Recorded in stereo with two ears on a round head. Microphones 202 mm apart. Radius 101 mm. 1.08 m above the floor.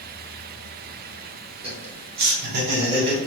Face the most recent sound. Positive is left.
turn(degrees=-40)  # may be behind; listen again after turning